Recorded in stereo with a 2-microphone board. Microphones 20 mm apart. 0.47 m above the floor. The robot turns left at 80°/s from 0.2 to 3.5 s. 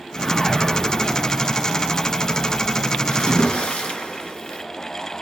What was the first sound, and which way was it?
A whoosh, 20° left (ahead or behind).